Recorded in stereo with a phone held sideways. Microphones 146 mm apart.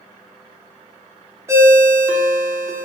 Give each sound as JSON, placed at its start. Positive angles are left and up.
{"t": 1.5, "sound": "a ringtone", "side_deg": -20, "distance_m": 0.6}